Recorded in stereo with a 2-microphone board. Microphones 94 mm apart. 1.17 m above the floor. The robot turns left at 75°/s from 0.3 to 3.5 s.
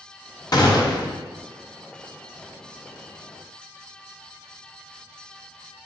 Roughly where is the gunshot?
Left.